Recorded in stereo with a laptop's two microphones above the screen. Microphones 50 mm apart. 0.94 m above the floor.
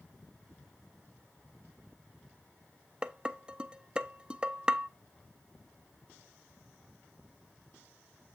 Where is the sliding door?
No sliding door in this recording.